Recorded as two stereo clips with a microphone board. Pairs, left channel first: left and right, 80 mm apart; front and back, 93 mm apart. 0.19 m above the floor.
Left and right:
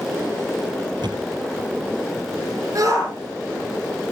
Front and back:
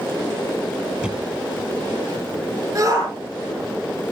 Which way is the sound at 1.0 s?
105° right.